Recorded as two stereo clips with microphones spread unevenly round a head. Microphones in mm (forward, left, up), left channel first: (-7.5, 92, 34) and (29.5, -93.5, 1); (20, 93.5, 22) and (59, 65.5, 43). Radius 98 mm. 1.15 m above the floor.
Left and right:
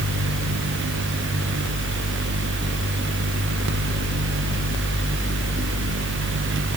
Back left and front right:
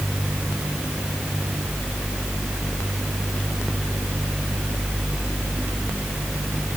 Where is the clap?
No clap in this recording.